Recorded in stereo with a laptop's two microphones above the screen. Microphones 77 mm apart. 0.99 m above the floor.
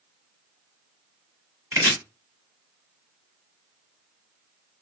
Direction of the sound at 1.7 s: 40° right (ahead or behind).